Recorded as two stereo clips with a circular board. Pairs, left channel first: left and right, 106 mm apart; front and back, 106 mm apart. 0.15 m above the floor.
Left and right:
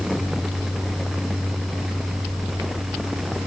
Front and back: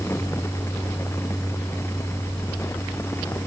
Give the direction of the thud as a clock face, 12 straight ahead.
No thud in this recording.